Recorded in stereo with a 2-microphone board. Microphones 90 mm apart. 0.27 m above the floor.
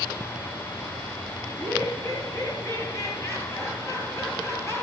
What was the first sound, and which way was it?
Laughter, 25° left (ahead or behind).